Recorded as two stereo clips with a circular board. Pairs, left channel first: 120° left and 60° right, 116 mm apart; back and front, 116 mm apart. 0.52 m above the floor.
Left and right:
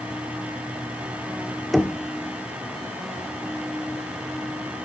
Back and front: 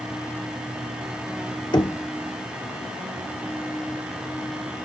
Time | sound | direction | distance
1.7 | knocking | 150° right | 1.0 m